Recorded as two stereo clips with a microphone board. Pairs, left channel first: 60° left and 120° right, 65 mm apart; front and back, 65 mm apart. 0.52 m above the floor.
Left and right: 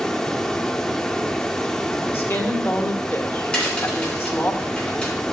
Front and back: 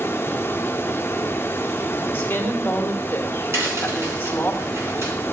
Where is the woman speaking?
40° left, 1.6 m.